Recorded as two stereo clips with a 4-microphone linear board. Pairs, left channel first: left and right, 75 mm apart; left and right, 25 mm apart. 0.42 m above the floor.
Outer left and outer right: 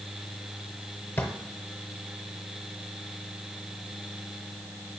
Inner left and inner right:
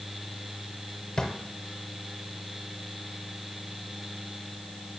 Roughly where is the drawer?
Left.